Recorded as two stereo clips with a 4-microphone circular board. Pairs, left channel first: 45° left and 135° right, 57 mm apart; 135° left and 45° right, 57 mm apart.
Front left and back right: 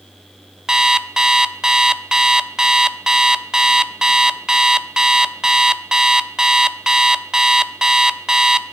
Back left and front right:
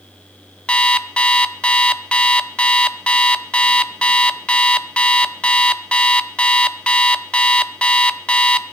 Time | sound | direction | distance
0.7 | an alarm clock | 160° left | 0.6 m